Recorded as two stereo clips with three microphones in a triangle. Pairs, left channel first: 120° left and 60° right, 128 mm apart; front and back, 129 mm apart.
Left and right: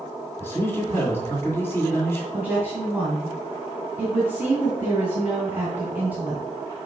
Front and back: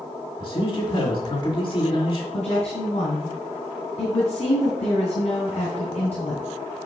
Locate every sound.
0.4 s a man speaking: 50° left, 2.5 m
2.3 s a woman speaking: 15° left, 2 m